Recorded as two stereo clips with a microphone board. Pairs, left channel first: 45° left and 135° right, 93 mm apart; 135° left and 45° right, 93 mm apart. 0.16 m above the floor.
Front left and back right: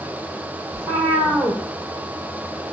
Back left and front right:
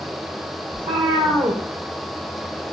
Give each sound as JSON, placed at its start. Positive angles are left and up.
{"t": 0.7, "sound": "a cat meowing", "azimuth_deg": -70, "distance_m": 0.9}